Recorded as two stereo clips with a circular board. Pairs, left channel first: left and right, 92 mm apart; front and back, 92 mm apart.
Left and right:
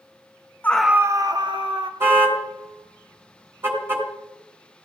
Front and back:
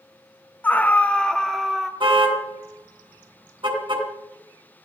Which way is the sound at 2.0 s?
155° right.